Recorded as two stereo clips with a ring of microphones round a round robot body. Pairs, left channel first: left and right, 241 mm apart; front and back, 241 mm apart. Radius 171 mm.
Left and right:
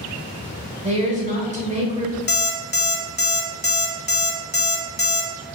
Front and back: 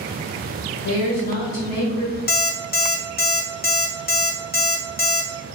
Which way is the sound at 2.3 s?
45° left.